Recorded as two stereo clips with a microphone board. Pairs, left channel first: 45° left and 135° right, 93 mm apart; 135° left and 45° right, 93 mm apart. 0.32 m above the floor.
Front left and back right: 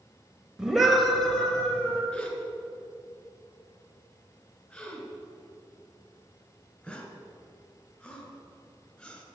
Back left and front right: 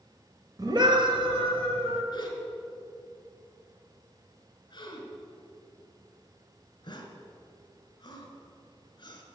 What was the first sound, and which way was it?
A scream, 55° right.